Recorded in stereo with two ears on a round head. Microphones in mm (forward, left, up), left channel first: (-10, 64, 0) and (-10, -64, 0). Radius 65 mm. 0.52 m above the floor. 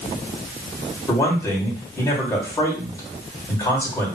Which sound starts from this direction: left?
A man speaking, at 1.1 s.